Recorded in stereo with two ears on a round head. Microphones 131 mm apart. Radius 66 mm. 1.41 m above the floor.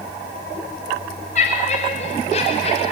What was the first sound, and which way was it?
Laughter, 50° left (ahead or behind).